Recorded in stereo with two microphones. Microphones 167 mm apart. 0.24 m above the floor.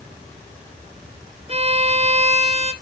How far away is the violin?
About 0.9 m.